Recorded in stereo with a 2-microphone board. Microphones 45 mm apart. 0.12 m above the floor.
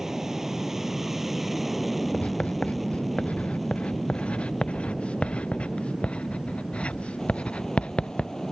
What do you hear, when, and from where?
0.0 s an aircraft: 10° right (ahead or behind); by 8.5 s 10° left (ahead or behind)
2.1 s writing: 30° left (ahead or behind)